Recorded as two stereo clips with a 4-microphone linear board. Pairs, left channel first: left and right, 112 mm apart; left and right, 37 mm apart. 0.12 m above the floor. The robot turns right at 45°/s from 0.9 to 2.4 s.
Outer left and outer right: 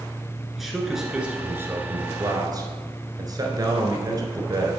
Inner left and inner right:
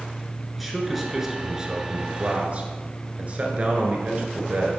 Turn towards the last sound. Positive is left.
turn(degrees=-110)